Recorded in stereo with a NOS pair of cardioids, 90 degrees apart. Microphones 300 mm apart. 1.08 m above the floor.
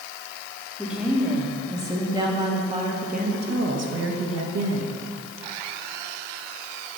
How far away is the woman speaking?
About 2.5 m.